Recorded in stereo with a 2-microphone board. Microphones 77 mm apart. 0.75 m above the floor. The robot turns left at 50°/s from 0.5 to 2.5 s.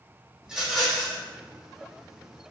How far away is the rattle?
About 1.0 m.